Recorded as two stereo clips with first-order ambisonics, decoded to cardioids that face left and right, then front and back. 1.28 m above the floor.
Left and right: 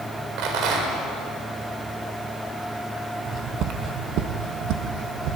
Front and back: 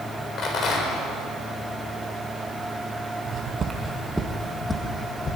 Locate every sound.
0.4 s a rattle: 60° right, 4 m
3.2 s footsteps: 140° right, 2 m; by 5.4 s 65° right, 3 m